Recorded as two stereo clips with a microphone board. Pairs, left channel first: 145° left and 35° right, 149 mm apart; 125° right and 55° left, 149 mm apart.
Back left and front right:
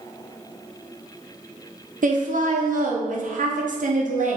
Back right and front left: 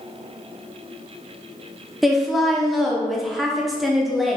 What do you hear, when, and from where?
2.0 s a woman speaking: 35° right, 0.7 m